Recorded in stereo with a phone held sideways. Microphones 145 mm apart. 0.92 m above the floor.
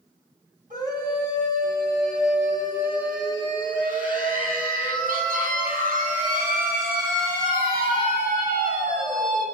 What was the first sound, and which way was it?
A scream, 75° right (ahead or behind).